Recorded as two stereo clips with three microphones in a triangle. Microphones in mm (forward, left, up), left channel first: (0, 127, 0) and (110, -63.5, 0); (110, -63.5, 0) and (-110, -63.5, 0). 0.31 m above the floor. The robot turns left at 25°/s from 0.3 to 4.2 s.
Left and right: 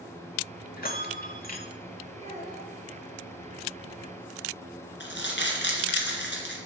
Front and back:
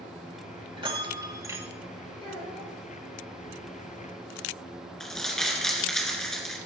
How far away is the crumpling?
About 2.5 m.